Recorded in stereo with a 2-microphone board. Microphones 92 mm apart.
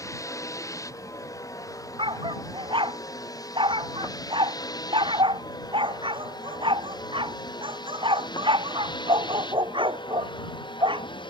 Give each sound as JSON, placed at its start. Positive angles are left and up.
{"t": 0.0, "sound": "a vehicle", "side_deg": 35}
{"t": 2.0, "sound": "a dog barking", "side_deg": -65}